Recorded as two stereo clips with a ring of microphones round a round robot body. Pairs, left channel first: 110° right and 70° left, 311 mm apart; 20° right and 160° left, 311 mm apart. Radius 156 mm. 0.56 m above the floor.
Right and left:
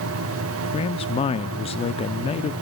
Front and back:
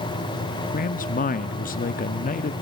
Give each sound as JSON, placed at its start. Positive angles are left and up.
{"t": 0.7, "sound": "a man speaking", "azimuth_deg": -60, "distance_m": 0.7}